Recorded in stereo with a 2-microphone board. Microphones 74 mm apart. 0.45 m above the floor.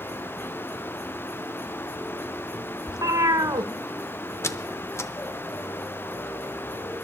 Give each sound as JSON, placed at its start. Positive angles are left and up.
{"t": 2.9, "sound": "a cat meowing", "side_deg": -55, "distance_m": 0.8}
{"t": 4.4, "sound": "a squeak", "side_deg": 35, "distance_m": 0.6}